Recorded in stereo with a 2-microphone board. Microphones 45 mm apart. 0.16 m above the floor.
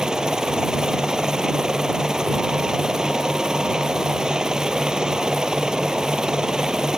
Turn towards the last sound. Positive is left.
turn(degrees=-15)  # may be behind; listen again after turning